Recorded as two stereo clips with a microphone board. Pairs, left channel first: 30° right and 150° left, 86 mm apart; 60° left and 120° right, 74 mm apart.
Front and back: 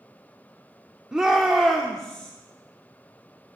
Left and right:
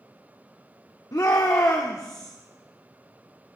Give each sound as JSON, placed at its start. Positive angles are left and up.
{"t": 1.1, "sound": "a shout", "azimuth_deg": 70, "distance_m": 1.2}